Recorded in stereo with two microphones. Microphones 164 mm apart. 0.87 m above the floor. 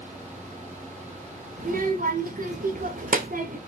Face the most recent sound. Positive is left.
turn(degrees=-60)  # may be behind; listen again after turning